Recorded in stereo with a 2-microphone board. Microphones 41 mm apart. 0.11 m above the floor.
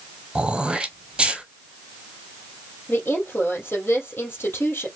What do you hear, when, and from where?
0.3 s throat clearing: 20° right (ahead or behind), 0.8 m
2.9 s a woman speaking: 65° left (ahead or behind), 2.5 m